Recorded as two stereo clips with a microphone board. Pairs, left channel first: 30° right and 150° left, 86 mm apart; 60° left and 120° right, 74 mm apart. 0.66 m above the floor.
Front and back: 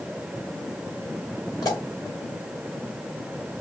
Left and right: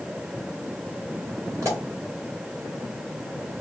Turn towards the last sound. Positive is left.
turn(degrees=-75)